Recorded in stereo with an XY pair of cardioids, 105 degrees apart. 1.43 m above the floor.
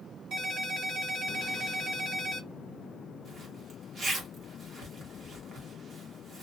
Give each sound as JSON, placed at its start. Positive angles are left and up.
{"t": 0.3, "sound": "a ringtone", "azimuth_deg": -70, "distance_m": 1.7}
{"t": 3.2, "sound": "a zipper", "azimuth_deg": -50, "distance_m": 1.2}